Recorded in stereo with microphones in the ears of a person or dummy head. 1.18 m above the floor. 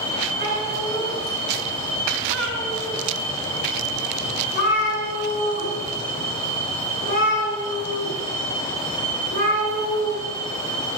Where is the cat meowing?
50° left (ahead or behind), 6 m.